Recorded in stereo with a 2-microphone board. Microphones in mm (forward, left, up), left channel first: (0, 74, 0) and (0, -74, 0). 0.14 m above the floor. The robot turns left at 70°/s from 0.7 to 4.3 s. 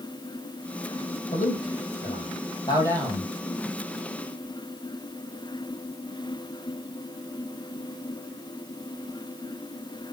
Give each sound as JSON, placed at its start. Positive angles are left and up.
{"t": 1.3, "sound": "a man speaking", "side_deg": 50, "distance_m": 5.0}